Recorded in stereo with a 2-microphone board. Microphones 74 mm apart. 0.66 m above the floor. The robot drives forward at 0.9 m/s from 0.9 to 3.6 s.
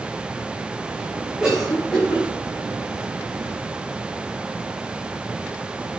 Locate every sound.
1.4 s a cough: 15° right (ahead or behind), 3.5 m; by 2.2 s 10° right (ahead or behind), 4 m